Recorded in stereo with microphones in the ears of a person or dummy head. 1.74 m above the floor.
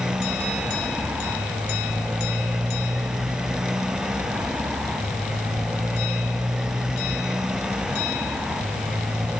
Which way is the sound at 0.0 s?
5° right (ahead or behind).